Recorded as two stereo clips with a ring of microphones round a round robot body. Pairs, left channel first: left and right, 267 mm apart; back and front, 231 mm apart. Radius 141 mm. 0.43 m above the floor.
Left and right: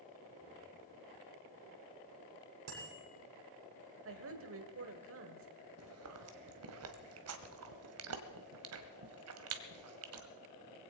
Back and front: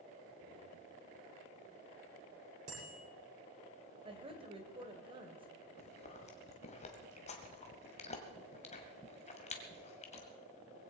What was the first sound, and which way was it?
A bicycle bell, 60° right.